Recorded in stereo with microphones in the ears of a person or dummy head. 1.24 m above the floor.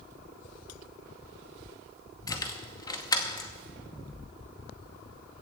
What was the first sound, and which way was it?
Keys jangling, 20° left (ahead or behind).